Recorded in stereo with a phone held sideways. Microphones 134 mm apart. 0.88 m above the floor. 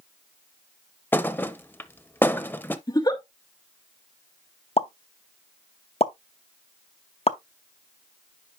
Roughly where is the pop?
Left.